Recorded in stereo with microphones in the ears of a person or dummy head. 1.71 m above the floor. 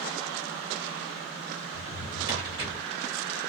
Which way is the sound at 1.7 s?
30° right (ahead or behind).